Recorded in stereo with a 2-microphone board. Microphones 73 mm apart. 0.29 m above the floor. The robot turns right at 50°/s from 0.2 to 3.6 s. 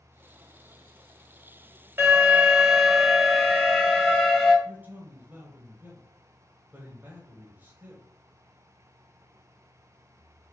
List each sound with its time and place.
2.0 s an alarm: 65° right, 1.9 m; by 4.5 s 15° left, 1.9 m
4.7 s a man speaking: 25° right (ahead or behind), 1.4 m